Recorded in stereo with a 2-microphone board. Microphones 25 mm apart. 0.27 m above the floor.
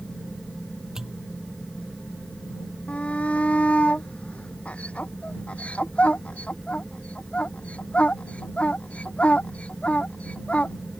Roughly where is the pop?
Right.